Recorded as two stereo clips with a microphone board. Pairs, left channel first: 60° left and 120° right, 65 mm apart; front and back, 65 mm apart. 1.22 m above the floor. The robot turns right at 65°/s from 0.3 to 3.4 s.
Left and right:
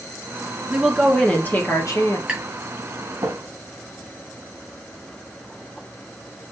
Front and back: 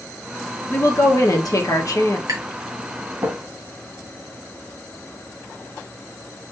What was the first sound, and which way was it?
A woman speaking, 55° right.